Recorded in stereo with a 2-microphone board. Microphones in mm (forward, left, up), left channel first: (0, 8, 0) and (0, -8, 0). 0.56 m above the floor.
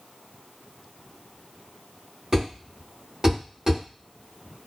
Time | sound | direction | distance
2.3 | a thud | 40° right (ahead or behind) | 1.5 m